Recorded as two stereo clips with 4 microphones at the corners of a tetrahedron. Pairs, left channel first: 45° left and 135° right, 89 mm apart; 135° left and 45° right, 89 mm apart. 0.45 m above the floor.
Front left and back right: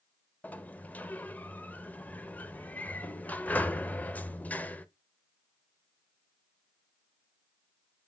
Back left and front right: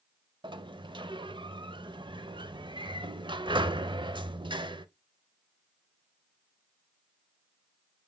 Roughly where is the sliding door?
Ahead right.